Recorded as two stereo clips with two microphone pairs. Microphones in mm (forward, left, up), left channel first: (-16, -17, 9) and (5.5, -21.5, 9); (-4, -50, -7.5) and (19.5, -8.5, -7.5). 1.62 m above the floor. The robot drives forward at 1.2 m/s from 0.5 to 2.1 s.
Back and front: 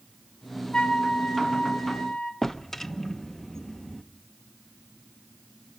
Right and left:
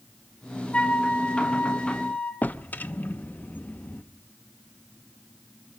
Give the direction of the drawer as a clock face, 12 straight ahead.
4 o'clock.